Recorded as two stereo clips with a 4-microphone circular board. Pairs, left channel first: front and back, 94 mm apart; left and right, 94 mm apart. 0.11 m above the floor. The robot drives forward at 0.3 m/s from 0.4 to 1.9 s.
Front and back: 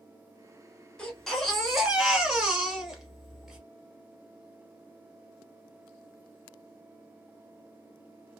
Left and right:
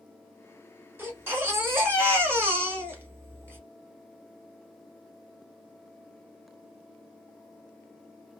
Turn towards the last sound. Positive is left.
turn(degrees=-105)